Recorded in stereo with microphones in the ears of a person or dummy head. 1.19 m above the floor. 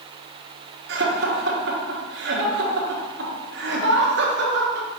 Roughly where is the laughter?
Right.